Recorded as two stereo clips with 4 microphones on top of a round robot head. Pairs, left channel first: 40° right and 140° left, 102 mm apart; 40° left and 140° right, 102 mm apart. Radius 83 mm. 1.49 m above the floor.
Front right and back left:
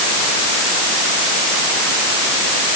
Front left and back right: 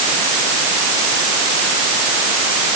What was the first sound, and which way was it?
Only background noise.